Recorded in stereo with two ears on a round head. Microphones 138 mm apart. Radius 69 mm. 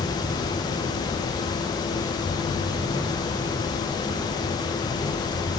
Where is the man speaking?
No man speaking in this recording.